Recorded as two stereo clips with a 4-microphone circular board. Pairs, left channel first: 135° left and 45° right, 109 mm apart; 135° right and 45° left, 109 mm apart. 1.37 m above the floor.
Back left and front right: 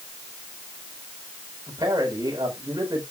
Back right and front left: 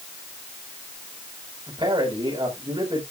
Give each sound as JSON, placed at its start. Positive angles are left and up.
{"t": 1.7, "sound": "a man speaking", "azimuth_deg": 10, "distance_m": 4.5}